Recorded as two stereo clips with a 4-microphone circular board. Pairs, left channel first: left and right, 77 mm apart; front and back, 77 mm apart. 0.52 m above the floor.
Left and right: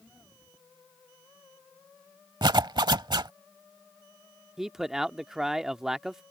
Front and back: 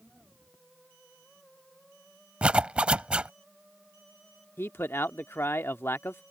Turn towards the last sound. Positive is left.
turn(degrees=-15)